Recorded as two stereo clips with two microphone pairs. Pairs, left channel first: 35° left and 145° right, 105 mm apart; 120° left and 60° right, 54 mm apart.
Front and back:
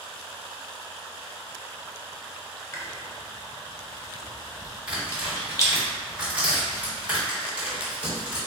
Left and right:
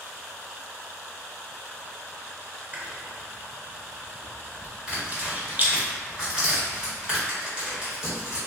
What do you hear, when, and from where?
2.7 s chewing: 15° right, 0.6 m
4.9 s tearing paper: 100° right, 1.4 m